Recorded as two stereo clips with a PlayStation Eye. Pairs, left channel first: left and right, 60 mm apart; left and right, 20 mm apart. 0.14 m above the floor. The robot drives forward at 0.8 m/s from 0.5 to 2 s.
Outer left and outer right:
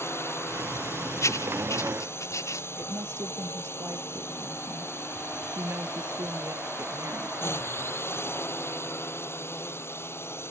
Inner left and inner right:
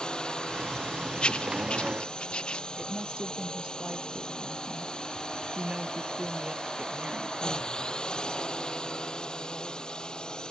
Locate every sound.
0.0 s a drone: 45° left (ahead or behind)
1.2 s writing: 55° left (ahead or behind)
2.8 s a woman speaking: 50° right (ahead or behind)